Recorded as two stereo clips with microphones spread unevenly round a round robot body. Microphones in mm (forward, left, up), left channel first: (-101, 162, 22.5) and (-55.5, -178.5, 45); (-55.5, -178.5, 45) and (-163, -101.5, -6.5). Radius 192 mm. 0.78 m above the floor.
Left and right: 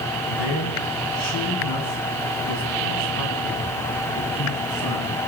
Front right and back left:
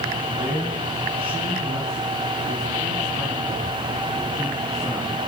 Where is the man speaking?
70° left, 6.5 m; by 5.2 s 50° left, 10.5 m.